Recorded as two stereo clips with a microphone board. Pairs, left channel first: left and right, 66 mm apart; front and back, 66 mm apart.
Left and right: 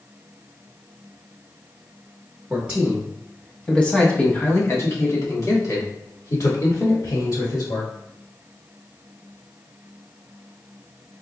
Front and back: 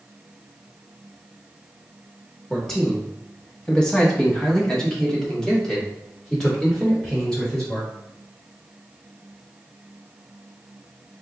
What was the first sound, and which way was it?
A man speaking, 70° right.